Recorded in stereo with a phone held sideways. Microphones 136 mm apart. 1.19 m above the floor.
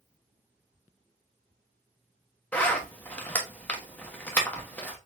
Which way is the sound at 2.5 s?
15° left (ahead or behind).